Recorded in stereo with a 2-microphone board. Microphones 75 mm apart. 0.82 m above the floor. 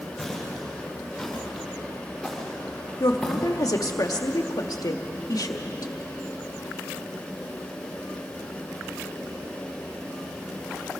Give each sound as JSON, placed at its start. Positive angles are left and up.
{"t": 0.2, "sound": "footsteps", "side_deg": 0, "distance_m": 8.5}
{"t": 3.0, "sound": "a woman speaking", "side_deg": 60, "distance_m": 1.6}